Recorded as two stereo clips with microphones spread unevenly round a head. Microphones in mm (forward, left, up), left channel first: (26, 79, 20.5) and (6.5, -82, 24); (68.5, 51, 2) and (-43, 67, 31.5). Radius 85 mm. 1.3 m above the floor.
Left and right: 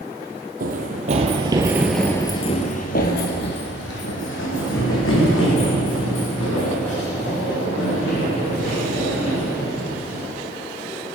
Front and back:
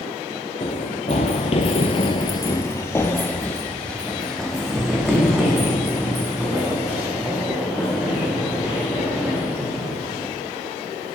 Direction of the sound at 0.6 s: 70° right.